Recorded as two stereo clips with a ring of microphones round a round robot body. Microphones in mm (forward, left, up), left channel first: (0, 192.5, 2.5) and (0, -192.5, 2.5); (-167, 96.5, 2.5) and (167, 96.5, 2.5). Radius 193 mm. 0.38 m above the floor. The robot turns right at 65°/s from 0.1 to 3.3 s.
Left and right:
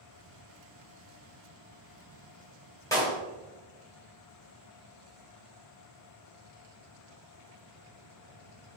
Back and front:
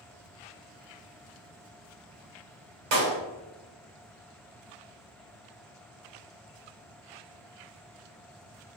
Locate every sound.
2.9 s a clap: 10° left, 1.4 m; by 3.2 s 30° left, 1.4 m